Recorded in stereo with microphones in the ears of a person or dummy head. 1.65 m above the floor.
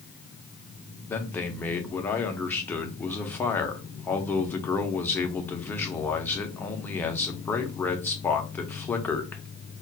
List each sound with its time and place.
1.1 s a man speaking: 10° left (ahead or behind), 0.5 m